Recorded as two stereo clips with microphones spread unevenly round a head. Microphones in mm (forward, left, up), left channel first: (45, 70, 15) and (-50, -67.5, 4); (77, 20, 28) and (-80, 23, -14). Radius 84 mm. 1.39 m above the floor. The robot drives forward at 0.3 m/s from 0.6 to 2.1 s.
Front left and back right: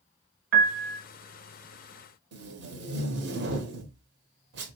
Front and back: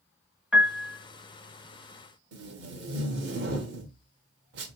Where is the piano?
90° right, 0.6 m; by 1.0 s 105° right, 0.6 m.